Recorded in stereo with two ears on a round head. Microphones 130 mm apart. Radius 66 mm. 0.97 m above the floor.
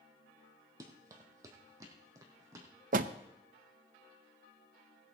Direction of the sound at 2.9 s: 60° right (ahead or behind).